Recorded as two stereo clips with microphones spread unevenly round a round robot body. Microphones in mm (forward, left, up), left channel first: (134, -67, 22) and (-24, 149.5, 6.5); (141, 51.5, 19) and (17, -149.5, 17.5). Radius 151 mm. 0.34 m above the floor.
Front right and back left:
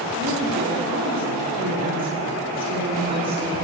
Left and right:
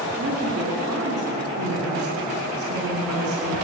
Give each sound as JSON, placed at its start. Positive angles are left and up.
{"t": 0.2, "sound": "a woman speaking", "azimuth_deg": -160, "distance_m": 4.0}